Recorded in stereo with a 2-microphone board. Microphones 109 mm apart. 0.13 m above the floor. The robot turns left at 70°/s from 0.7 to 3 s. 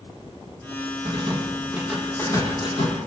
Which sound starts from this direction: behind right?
A rattle, at 1.1 s.